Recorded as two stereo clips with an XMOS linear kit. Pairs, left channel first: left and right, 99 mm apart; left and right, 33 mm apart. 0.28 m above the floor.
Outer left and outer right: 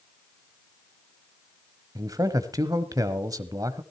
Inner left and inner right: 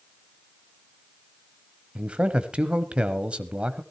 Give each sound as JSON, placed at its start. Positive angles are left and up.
{"t": 1.9, "sound": "a man speaking", "side_deg": -35, "distance_m": 1.2}